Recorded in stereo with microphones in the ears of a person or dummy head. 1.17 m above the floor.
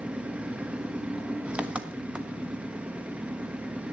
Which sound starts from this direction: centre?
An engine running, at 0.0 s.